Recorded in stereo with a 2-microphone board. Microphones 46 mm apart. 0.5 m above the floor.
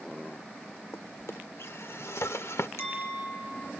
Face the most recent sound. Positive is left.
turn(degrees=80)